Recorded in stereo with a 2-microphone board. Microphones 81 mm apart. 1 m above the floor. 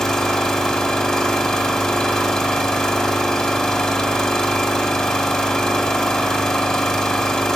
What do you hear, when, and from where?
0.0 s an engine running: 10° left (ahead or behind), 1.8 m